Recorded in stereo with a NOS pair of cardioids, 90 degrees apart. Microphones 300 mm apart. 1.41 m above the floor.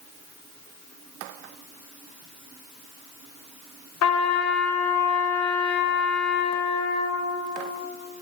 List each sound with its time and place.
4.0 s a trumpet: 60° left, 1.0 m